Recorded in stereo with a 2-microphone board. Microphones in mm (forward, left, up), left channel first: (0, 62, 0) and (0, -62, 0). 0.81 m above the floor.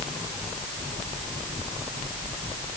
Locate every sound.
Only background noise.